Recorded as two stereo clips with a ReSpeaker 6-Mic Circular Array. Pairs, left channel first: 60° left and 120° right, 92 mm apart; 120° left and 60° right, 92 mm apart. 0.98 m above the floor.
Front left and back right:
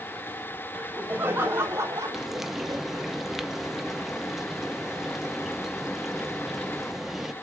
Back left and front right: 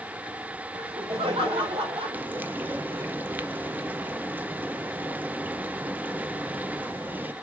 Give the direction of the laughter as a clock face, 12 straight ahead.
2 o'clock.